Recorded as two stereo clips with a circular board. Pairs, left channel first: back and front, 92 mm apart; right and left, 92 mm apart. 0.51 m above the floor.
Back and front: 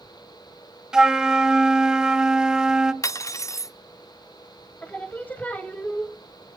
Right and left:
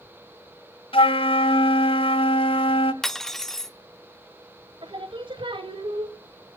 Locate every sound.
0.9 s a flute: 80° right, 1.1 m
3.0 s cutlery clinking: 175° right, 0.6 m
4.8 s singing: 110° left, 1.8 m